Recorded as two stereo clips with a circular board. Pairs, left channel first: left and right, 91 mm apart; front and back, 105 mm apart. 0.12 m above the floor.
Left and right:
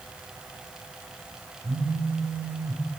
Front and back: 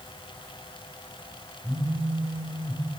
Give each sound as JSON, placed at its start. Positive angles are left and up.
{"t": 1.6, "sound": "a phone buzzing", "azimuth_deg": -115, "distance_m": 1.5}